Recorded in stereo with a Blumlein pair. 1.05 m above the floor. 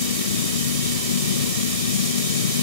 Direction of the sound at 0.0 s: 65° left.